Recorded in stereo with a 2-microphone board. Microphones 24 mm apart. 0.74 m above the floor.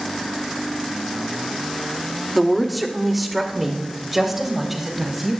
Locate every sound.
2.4 s a woman speaking: 5° left (ahead or behind), 1.4 m; by 5.3 s 10° right (ahead or behind), 5.5 m